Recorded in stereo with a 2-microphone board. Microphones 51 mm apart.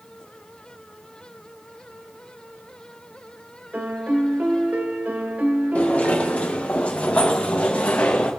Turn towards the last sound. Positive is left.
turn(degrees=20)  # may be behind; listen again after turning